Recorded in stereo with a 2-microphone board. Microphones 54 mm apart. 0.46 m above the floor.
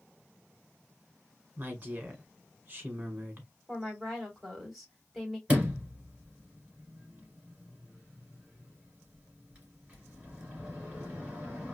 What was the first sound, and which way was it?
A woman speaking, 35° right (ahead or behind).